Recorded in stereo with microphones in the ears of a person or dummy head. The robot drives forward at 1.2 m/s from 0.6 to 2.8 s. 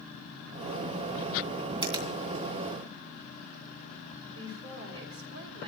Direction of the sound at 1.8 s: 30° right (ahead or behind).